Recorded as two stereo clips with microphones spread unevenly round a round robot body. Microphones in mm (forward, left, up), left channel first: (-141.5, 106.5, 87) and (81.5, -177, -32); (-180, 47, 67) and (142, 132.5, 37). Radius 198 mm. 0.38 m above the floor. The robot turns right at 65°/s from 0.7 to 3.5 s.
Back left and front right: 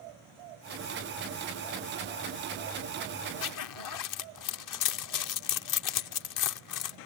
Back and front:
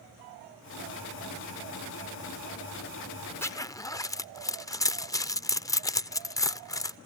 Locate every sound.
3.4 s a zipper: 110° left; by 7.0 s 115° left